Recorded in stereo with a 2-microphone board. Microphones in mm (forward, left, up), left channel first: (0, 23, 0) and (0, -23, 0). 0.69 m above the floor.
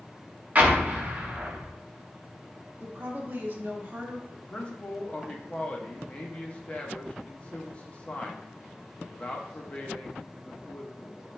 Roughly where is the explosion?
Right.